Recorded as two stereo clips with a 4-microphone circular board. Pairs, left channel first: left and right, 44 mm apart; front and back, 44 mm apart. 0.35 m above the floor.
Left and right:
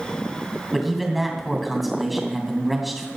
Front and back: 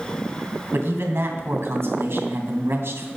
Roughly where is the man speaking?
Behind.